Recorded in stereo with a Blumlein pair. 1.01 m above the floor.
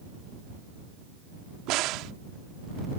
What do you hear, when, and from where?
1.7 s a crack: 40° right